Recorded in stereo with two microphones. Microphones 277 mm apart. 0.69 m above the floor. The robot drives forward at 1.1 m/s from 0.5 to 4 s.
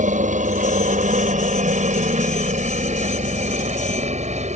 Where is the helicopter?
30° right (ahead or behind); by 4.5 s 25° right (ahead or behind).